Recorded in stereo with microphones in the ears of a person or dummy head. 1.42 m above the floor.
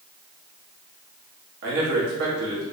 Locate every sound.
1.6 s a man speaking: 70° right (ahead or behind), 1.8 m